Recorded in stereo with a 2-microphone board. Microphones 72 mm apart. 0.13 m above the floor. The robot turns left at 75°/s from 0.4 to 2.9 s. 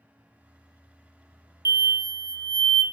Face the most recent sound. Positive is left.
turn(degrees=10)